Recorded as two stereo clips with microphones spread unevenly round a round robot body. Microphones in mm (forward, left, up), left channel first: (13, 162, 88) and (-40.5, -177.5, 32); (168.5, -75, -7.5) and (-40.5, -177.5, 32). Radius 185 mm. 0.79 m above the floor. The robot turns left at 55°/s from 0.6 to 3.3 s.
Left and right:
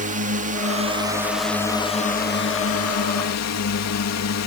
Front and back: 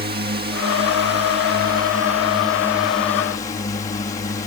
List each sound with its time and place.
0.0 s a drone: 130° right; by 4.5 s 80° left